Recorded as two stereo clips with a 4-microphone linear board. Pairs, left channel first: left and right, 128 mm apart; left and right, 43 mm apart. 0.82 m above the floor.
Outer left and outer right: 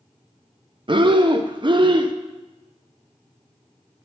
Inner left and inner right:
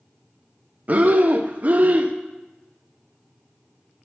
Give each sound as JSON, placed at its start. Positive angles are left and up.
{"t": 0.9, "sound": "breathing", "side_deg": -40, "distance_m": 0.5}